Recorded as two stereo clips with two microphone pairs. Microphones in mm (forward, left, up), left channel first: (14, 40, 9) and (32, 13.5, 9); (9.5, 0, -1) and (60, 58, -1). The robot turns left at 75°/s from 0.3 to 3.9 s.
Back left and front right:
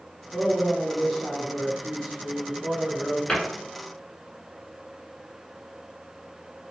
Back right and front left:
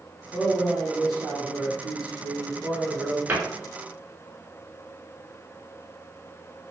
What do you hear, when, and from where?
0.3 s a man speaking: 160° right, 1.1 m; by 3.2 s 15° right, 1.1 m
3.3 s a cupboard door: 80° left, 0.9 m; by 3.4 s 70° left, 0.9 m